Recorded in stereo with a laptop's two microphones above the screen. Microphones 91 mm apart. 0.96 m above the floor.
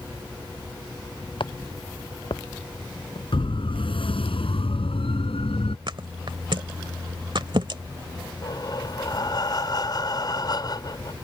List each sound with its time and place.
1.4 s footsteps: 65° left (ahead or behind)
3.3 s a siren: 70° left (ahead or behind); by 5.8 s 85° left
5.9 s a thud: 60° right (ahead or behind)
8.4 s breathing: 50° left (ahead or behind)